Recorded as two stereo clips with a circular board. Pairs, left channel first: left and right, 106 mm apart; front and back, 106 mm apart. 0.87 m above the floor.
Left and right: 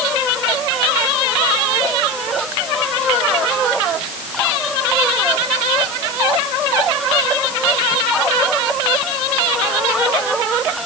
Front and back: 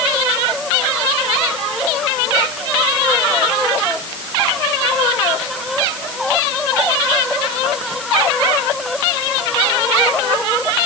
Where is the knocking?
I don't hear knocking.